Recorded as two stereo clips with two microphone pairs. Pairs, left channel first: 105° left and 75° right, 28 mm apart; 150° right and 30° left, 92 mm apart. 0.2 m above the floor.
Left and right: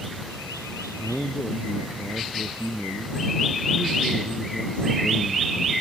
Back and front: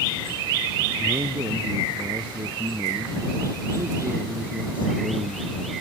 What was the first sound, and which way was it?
A man speaking, 60° left.